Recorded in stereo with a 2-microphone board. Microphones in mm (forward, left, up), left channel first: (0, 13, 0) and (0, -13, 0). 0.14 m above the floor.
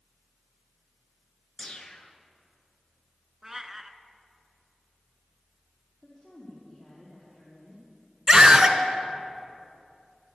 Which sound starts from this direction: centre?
A cat meowing, at 3.4 s.